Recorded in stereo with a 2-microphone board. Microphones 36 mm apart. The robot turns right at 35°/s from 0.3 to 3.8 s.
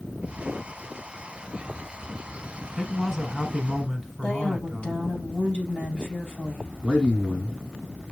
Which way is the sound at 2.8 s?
5° left (ahead or behind).